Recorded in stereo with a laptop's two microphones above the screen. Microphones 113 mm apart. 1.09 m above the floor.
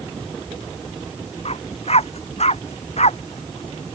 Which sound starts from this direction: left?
A dog barking, at 1.4 s.